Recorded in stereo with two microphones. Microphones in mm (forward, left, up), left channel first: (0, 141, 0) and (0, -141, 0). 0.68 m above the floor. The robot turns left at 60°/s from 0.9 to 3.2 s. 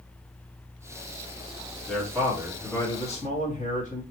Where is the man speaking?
140° right, 1.6 m; by 4.0 s 140° left, 1.6 m.